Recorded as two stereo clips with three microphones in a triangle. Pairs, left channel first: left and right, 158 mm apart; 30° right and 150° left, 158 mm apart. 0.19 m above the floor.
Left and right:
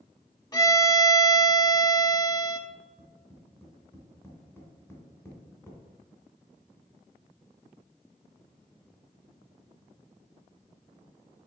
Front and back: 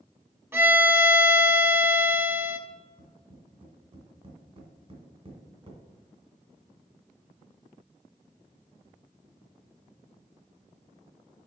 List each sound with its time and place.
0.5 s a violin: 100° left, 0.8 m
2.7 s tapping: 155° left, 1.9 m